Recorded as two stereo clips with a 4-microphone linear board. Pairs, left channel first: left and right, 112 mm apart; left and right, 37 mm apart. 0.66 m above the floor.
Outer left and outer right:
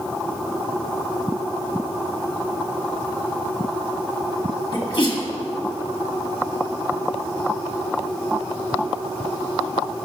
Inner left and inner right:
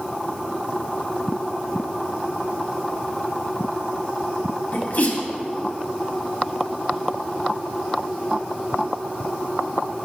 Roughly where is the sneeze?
Left.